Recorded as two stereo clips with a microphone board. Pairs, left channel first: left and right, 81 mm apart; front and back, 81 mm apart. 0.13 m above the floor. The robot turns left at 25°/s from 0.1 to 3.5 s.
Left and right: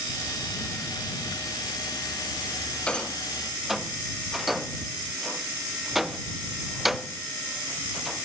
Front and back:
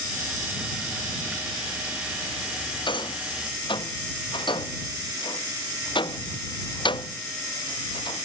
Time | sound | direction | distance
2.9 | a rattle | 15° left | ?